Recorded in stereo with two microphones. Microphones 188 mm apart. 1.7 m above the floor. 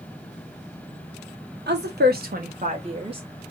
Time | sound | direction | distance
1.7 | a woman speaking | 65° right (ahead or behind) | 1.1 m